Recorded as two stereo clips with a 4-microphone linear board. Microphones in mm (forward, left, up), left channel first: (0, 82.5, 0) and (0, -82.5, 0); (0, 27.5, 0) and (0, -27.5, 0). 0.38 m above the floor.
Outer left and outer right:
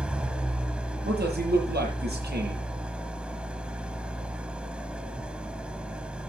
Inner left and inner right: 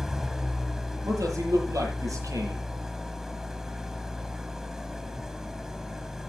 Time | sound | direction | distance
0.0 | an engine running | 5° right (ahead or behind) | 1.4 m
1.1 | a man speaking | 75° right (ahead or behind) | 8.5 m